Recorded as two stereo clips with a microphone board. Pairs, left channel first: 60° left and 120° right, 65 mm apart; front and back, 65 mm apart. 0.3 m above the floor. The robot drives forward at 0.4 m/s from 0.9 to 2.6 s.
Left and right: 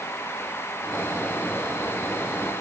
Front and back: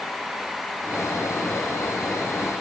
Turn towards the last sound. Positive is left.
No sound to turn to.